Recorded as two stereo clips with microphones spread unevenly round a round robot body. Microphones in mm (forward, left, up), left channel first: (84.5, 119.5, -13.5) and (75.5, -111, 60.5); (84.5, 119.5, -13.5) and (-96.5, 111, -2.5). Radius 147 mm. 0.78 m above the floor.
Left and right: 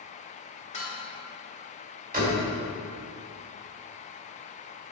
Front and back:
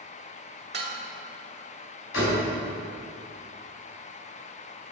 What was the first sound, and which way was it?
Dishes clattering, 155° left.